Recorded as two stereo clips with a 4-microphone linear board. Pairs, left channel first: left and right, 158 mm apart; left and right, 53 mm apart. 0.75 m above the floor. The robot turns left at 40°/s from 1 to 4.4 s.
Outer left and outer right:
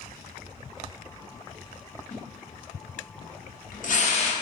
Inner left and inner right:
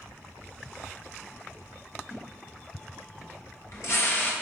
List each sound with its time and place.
2.1 s a splash: 55° left (ahead or behind), 0.7 m; by 4.3 s 35° left (ahead or behind), 0.7 m